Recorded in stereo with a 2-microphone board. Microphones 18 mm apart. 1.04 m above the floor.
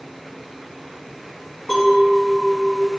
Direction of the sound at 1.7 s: 45° left (ahead or behind).